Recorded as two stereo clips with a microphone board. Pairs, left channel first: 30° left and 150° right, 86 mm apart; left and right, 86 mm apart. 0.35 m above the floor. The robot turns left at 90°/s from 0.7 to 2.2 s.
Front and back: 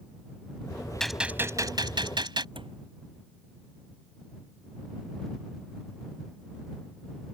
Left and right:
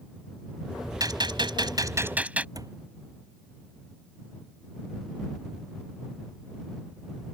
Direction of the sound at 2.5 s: 135° right.